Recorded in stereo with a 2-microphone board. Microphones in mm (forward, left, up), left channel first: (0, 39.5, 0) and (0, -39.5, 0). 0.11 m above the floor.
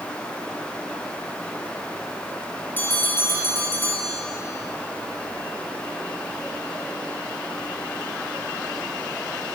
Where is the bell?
25° left (ahead or behind), 3 m.